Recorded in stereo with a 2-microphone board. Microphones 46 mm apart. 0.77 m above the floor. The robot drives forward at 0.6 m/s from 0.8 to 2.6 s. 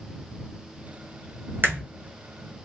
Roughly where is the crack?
Right.